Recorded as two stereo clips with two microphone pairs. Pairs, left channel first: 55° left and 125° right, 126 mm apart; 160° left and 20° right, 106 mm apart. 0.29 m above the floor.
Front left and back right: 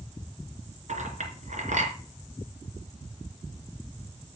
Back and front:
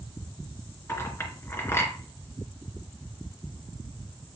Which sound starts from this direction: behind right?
A clink, at 0.9 s.